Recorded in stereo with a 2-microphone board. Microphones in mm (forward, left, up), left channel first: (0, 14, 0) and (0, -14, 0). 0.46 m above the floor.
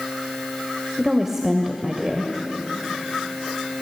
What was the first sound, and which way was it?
A woman speaking, 15° right (ahead or behind).